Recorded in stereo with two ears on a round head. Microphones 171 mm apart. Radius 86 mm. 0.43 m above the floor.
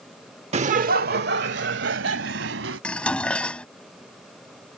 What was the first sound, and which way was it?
Laughter, 35° right (ahead or behind).